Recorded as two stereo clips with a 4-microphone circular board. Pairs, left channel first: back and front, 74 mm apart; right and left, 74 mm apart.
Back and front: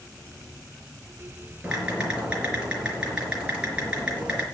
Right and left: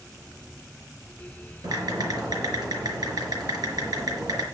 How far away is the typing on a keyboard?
About 4.5 m.